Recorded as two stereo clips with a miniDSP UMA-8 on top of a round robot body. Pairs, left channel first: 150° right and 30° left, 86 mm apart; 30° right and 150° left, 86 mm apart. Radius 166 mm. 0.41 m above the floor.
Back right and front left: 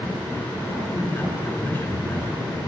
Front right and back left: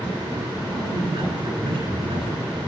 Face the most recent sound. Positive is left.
turn(degrees=145)